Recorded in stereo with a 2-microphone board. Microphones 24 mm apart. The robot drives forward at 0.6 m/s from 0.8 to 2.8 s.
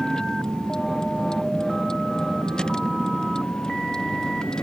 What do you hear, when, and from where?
0.0 s a vehicle: 30° left (ahead or behind)